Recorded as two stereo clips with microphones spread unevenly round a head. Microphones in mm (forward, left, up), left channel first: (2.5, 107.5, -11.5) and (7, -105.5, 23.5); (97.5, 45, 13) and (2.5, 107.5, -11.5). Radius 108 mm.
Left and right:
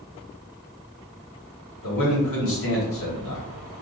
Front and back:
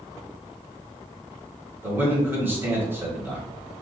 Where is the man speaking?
80° left, 1.4 m.